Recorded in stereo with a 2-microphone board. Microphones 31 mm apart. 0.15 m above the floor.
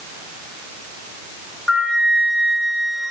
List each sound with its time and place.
1.7 s a flute: 20° left (ahead or behind), 3.5 m